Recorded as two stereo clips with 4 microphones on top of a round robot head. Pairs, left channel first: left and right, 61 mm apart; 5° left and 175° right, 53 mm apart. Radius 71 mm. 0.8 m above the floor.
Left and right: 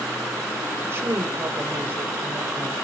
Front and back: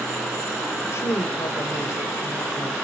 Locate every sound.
0.8 s a woman speaking: 40° right, 2.5 m